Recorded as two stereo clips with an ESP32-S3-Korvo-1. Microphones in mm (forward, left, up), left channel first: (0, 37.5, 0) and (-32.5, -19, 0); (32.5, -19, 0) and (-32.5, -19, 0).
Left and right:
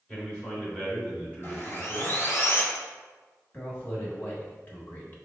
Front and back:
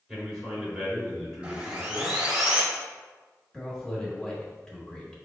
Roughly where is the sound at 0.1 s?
Left.